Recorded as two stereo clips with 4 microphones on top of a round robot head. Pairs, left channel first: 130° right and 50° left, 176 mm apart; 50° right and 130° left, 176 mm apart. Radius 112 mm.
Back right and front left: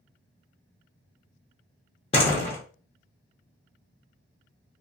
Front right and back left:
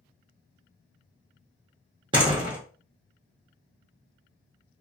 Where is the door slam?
175° right, 0.6 m.